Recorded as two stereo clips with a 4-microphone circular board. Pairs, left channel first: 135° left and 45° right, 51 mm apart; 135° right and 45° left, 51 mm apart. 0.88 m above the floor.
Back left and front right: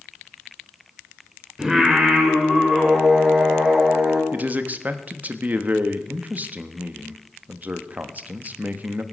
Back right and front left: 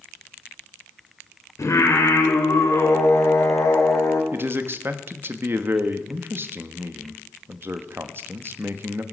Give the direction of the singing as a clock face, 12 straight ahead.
4 o'clock.